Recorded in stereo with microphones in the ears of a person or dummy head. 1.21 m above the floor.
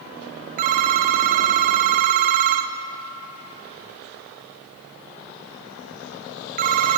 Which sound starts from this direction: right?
A phone ringing, at 0.6 s.